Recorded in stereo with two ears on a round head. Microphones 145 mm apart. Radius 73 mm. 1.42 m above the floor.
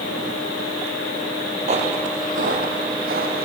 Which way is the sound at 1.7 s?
40° right (ahead or behind).